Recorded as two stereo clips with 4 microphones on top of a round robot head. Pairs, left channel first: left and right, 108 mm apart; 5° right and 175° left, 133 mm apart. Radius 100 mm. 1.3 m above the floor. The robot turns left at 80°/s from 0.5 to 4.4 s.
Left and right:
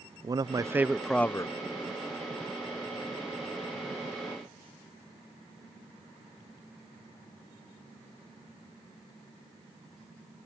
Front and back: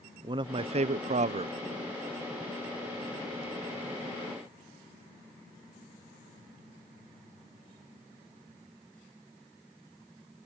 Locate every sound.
0.2 s a man speaking: 135° right; by 1.5 s 140° left